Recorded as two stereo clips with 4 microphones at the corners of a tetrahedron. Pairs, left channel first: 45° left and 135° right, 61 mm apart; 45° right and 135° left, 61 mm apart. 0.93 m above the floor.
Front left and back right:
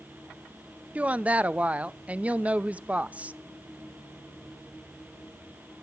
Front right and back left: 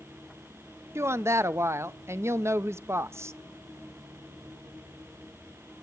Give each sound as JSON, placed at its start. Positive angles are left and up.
{"t": 0.9, "sound": "a woman speaking", "azimuth_deg": 160, "distance_m": 0.5}